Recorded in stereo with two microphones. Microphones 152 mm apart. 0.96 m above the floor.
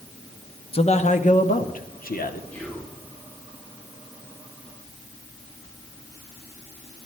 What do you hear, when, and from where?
0.7 s a man speaking: 40° left (ahead or behind), 0.9 m; by 2.4 s 75° left (ahead or behind), 1.7 m
2.5 s whispering: 15° left (ahead or behind), 2.5 m